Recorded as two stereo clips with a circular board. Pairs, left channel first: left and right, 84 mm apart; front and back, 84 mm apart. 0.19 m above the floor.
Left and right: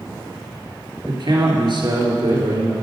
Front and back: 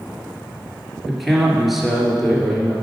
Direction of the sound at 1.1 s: 90° right.